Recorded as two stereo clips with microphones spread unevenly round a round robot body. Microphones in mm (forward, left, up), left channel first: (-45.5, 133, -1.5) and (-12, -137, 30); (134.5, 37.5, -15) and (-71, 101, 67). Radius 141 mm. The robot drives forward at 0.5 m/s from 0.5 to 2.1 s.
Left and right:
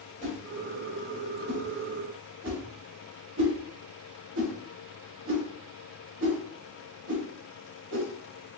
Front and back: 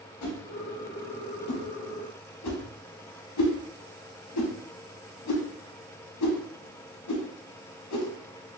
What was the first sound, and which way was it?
A whoosh, 15° right.